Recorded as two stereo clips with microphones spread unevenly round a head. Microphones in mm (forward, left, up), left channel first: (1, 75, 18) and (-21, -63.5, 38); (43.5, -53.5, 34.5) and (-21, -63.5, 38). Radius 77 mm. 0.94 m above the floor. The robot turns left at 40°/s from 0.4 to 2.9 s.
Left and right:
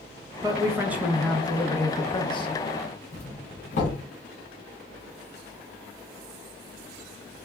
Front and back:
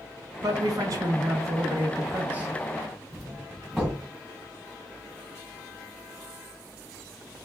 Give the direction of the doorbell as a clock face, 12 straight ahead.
9 o'clock.